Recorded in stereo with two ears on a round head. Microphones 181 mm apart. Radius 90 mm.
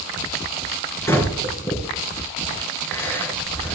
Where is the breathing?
15° left (ahead or behind), 3.5 m.